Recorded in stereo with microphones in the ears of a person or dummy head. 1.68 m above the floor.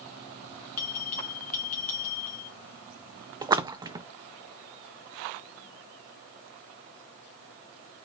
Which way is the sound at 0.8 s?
50° left (ahead or behind).